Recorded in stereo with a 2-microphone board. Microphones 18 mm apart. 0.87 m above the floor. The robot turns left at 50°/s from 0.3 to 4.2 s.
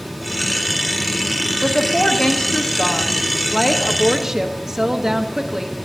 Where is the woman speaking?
100° left, 0.8 m; by 5.8 s 30° right, 0.8 m.